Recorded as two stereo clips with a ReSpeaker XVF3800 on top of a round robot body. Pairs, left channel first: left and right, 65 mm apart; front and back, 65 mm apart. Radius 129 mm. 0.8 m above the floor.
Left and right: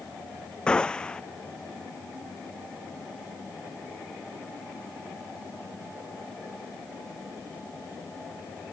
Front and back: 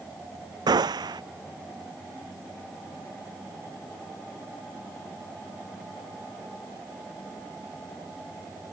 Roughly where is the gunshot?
Behind.